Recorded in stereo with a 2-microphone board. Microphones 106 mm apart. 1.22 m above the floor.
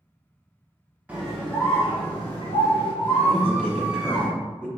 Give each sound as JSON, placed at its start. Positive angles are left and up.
{"t": 1.1, "sound": "a scream", "side_deg": -15, "distance_m": 0.6}
{"t": 3.3, "sound": "a man speaking", "side_deg": 10, "distance_m": 1.6}